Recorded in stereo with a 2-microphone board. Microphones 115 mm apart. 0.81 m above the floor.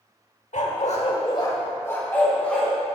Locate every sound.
0.5 s a dog barking: 75° left (ahead or behind), 1.1 m; by 3.0 s 5° left (ahead or behind), 3 m